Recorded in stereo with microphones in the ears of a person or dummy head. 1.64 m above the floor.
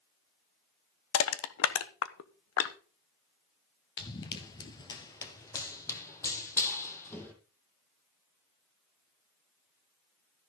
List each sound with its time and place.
1.1 s crushing: 75° left (ahead or behind), 1.0 m
4.0 s running footsteps: 20° left (ahead or behind), 1.7 m; by 7.3 s 10° left (ahead or behind), 3.5 m